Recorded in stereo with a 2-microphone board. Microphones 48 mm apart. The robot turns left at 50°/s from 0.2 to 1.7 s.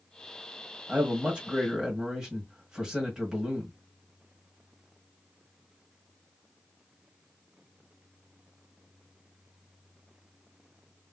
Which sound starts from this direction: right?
A man speaking, at 0.9 s.